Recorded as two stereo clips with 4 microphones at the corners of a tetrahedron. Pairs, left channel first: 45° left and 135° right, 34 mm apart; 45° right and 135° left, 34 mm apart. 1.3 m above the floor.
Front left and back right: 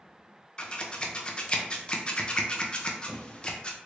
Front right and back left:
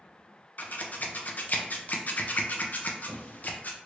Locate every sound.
0.6 s scissors: 15° right, 0.5 m